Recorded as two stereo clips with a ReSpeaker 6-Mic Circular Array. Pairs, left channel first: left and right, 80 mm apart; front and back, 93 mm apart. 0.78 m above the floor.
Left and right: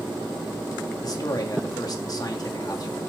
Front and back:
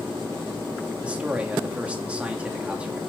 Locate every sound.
1.0 s a man speaking: 105° left, 1.6 m